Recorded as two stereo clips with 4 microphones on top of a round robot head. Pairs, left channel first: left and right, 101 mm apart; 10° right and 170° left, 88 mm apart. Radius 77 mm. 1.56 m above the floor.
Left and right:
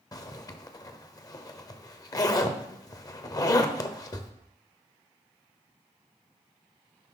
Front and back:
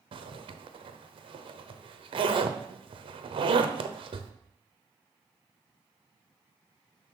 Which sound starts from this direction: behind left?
A zipper, at 0.1 s.